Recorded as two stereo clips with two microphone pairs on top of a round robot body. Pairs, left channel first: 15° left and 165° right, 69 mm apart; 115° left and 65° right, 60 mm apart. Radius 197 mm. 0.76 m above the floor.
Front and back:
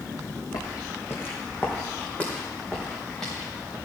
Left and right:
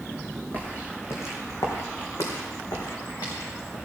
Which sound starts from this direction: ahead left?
Footsteps, at 0.5 s.